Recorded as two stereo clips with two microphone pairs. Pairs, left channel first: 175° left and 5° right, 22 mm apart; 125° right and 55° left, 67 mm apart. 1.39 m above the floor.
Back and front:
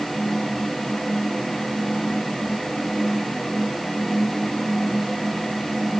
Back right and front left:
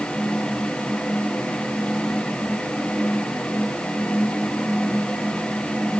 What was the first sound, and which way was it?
Only background noise.